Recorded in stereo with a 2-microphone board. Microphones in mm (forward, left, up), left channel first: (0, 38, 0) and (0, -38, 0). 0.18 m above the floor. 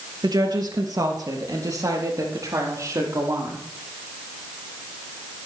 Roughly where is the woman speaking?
Right.